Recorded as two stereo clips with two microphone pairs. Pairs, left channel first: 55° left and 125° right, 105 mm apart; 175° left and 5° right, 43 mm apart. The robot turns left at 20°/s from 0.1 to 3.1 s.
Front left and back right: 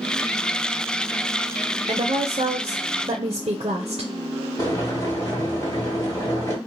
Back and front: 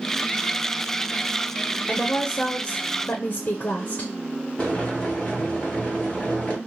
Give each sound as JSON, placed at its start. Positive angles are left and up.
{"t": 1.9, "sound": "a woman speaking", "azimuth_deg": -130, "distance_m": 0.5}
{"t": 4.6, "sound": "boiling", "azimuth_deg": 110, "distance_m": 1.8}